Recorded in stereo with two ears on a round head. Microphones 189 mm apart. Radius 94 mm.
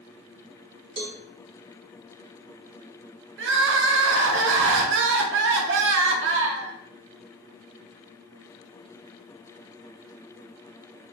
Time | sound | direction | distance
1.0 | a cowbell | 25° right (ahead or behind) | 1.0 m
3.4 | crying | 60° right (ahead or behind) | 0.6 m